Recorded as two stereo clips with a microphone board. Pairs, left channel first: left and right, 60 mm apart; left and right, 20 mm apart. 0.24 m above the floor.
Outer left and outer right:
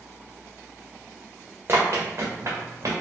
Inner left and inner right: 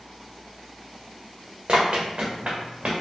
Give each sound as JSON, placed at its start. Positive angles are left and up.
{"t": 1.7, "sound": "running footsteps", "side_deg": -40, "distance_m": 1.4}